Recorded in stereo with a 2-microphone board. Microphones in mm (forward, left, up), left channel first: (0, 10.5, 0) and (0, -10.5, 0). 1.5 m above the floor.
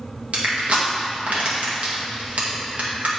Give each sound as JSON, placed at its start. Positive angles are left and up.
{"t": 0.3, "sound": "crushing", "side_deg": -70, "distance_m": 1.8}